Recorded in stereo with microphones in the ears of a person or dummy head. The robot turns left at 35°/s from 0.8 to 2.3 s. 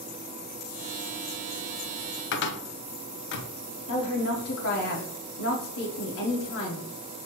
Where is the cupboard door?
55° left (ahead or behind), 0.6 m.